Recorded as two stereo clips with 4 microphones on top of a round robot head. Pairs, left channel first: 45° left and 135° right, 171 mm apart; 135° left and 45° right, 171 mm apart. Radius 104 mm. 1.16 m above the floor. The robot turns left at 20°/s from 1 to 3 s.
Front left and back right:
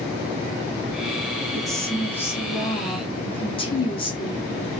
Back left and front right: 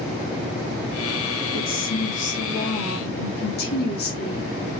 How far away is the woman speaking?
About 3 m.